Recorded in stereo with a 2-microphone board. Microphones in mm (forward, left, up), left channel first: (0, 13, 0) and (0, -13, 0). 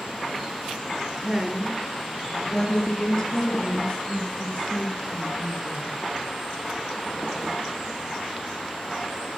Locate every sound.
1.2 s a woman speaking: 25° right (ahead or behind), 1.7 m; by 5.9 s 50° left (ahead or behind), 4.5 m